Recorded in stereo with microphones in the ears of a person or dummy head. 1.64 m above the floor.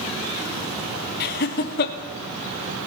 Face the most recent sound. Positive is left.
turn(degrees=55)  # may be behind; listen again after turning